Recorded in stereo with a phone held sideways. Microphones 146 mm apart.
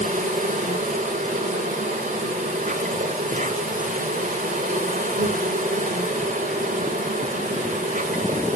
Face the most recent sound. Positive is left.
turn(degrees=-65)  # may be behind; listen again after turning